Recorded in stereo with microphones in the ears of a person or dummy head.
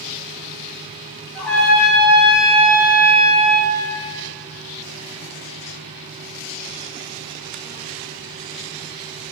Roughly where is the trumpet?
Centre.